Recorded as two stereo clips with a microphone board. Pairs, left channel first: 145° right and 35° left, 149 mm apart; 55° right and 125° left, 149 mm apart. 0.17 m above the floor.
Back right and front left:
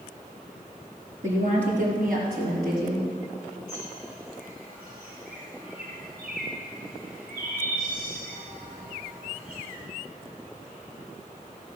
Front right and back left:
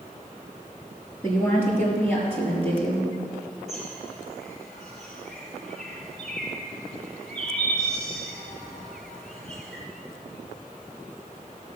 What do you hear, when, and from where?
1.2 s a woman speaking: 15° left, 3.5 m; by 3.1 s 20° left, 5 m
3.7 s a bird: 30° left, 4 m